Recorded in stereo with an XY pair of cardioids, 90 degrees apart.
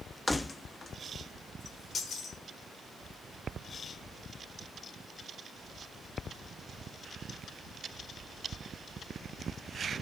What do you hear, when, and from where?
0.3 s keys jangling: 15° left, 1.0 m; by 2.4 s 65° left, 3.5 m